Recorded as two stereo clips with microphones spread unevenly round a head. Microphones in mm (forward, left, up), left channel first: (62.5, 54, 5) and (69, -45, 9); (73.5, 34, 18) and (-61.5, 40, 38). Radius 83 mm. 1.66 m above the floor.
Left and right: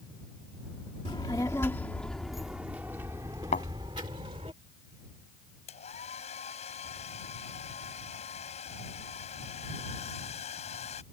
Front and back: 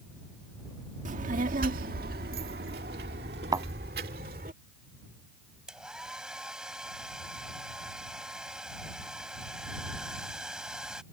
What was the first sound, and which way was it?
A child speaking, 155° left.